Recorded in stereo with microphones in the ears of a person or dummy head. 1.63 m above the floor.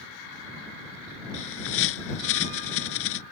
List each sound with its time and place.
1.3 s a bird: 70° left (ahead or behind)